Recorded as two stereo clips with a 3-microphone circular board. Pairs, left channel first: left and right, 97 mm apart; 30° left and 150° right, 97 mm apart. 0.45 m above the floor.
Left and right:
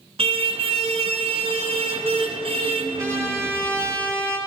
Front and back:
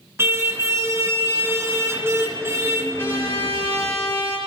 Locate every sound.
0.2 s a car horn: 85° right, 3 m
3.0 s a trumpet: 35° right, 9 m